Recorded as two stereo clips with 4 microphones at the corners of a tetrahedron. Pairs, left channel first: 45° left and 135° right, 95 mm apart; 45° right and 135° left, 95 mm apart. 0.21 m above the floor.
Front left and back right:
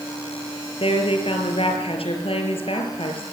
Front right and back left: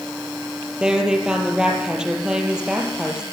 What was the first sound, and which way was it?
A woman speaking, 55° left.